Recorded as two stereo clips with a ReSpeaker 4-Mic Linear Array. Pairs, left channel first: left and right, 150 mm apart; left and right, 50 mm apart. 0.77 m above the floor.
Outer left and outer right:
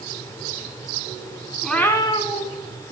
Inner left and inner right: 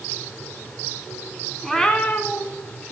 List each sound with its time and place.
1.6 s a cat meowing: centre (ahead or behind), 0.8 m; by 2.9 s 60° left (ahead or behind), 1.3 m